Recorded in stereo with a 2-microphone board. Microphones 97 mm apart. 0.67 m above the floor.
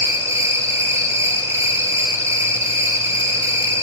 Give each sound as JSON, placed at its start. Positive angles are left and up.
{"t": 0.0, "sound": "an insect", "side_deg": -30, "distance_m": 1.0}